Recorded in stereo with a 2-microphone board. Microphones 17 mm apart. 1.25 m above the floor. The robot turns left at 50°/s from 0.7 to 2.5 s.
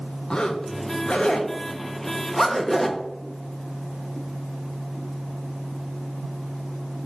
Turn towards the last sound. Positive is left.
turn(degrees=10)  # may be behind; listen again after turning